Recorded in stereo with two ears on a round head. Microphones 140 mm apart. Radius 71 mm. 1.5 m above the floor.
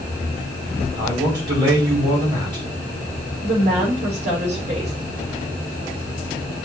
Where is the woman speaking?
45° right (ahead or behind), 5 m.